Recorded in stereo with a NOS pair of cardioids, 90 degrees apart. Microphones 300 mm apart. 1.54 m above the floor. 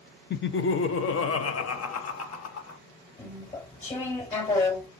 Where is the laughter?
35° left, 0.8 m; by 2.8 s 60° left, 1.9 m.